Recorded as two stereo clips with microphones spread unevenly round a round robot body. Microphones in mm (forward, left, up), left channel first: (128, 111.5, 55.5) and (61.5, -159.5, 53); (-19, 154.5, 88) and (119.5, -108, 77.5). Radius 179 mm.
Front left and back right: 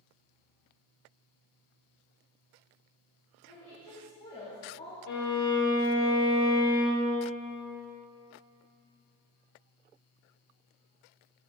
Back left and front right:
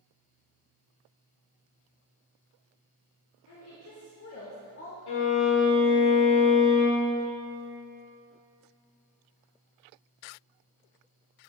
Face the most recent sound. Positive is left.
turn(degrees=130)